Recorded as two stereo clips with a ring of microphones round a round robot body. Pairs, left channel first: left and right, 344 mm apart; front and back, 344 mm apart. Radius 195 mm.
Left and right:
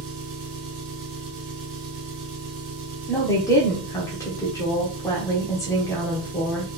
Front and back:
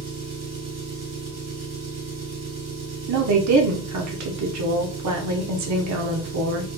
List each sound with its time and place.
0.0 s an engine running: 125° right, 2 m
3.1 s a woman speaking: 170° left, 1.1 m